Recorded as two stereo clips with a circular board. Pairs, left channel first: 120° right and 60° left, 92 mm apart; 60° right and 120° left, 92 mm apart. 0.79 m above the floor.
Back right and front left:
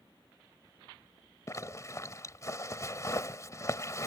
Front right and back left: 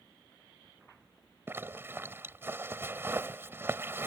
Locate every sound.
1.5 s a zipper: 175° right